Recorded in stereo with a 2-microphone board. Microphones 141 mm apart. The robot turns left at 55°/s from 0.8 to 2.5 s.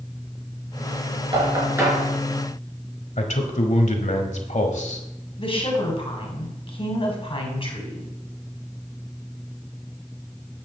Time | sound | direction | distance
1.3 | knocking | 40° right (ahead or behind) | 4.5 m
3.2 | a man speaking | 55° left (ahead or behind) | 1.4 m
5.4 | a woman speaking | 40° left (ahead or behind) | 2.5 m